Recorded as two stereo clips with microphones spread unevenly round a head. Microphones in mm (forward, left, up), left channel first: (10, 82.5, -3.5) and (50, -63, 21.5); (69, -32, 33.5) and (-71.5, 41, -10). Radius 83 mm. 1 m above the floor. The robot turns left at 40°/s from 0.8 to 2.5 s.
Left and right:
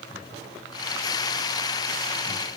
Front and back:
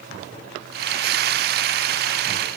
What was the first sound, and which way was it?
Only background noise.